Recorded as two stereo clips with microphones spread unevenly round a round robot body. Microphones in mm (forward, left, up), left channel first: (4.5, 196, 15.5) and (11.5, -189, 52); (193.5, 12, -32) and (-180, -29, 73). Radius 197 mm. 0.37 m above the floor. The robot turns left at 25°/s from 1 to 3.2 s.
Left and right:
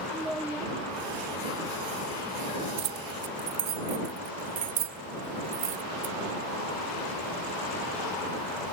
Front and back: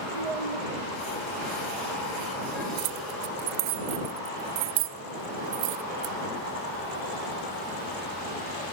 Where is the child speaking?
Straight behind.